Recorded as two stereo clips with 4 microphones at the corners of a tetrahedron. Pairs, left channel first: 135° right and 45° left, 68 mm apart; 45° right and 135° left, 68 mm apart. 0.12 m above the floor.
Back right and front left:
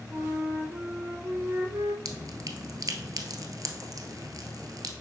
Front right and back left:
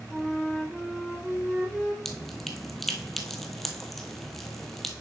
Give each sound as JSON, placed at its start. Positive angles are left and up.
{"t": 0.1, "sound": "a flute", "azimuth_deg": 45, "distance_m": 1.3}
{"t": 2.0, "sound": "dripping", "azimuth_deg": 40, "distance_m": 1.0}